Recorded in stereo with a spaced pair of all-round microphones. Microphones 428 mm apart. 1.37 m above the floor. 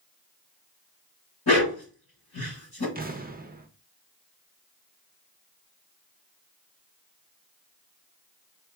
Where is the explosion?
20° right (ahead or behind), 0.6 m.